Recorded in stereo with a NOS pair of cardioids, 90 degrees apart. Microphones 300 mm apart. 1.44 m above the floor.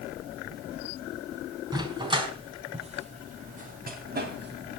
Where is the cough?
I don't hear a cough.